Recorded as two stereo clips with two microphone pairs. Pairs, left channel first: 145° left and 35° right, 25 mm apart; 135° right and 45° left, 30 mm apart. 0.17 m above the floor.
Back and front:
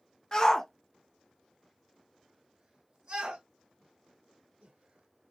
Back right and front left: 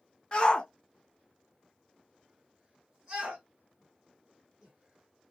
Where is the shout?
165° right, 1.3 m; by 5.3 s 20° right, 4 m.